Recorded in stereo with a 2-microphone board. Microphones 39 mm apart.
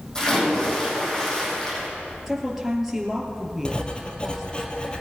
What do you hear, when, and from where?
0.1 s a splash: 20° left (ahead or behind), 6 m
2.3 s a woman speaking: 5° right (ahead or behind), 3 m
3.6 s writing: 25° left (ahead or behind), 1.8 m